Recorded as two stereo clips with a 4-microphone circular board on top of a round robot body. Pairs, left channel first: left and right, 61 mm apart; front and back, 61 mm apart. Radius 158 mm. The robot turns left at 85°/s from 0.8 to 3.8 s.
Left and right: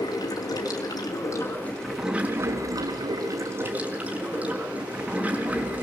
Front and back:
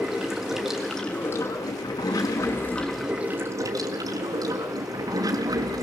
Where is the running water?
95° left, 3 m; by 5.8 s 160° right, 3 m.